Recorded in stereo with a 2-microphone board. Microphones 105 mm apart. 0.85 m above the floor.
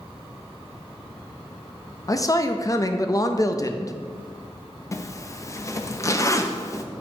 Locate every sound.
2.1 s a man speaking: 35° left (ahead or behind), 0.5 m
4.9 s a zipper: 30° left (ahead or behind), 0.5 m